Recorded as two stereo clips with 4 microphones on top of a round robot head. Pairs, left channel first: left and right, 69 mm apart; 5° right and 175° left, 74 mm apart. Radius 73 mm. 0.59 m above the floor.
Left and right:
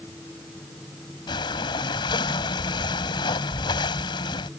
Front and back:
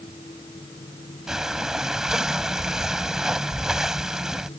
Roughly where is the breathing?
Left.